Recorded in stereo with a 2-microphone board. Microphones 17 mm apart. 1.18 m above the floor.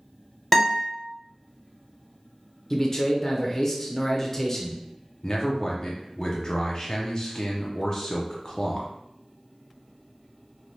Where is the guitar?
15° left (ahead or behind), 1.2 m.